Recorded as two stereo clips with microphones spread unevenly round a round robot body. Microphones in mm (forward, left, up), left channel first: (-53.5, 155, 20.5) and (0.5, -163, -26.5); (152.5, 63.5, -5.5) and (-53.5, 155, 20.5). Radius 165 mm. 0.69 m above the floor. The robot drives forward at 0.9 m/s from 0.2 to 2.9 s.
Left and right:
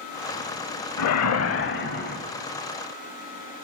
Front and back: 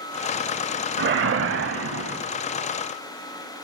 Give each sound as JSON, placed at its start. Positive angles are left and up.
{"t": 1.0, "sound": "a whoosh", "azimuth_deg": 125, "distance_m": 0.9}